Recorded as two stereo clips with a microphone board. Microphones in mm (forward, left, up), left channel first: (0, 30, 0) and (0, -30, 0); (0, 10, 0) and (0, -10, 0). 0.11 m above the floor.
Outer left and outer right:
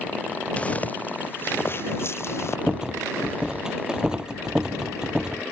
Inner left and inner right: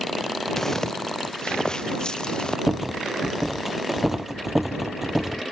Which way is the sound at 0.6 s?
20° left (ahead or behind).